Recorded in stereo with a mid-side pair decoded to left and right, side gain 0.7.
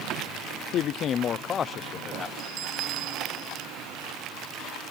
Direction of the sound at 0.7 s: 50° left.